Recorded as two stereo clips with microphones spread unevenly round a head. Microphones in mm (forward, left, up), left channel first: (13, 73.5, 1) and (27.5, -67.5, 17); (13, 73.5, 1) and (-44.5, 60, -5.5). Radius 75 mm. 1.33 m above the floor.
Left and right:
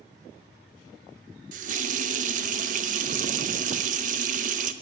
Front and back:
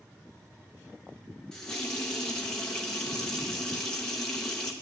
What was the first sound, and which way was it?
A running tap, 65° right.